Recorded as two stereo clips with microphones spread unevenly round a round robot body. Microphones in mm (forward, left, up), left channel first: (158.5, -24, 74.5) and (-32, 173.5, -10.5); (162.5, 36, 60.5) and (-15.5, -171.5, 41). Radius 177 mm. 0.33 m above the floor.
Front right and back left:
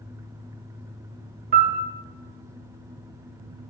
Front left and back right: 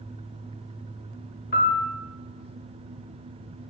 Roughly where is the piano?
Left.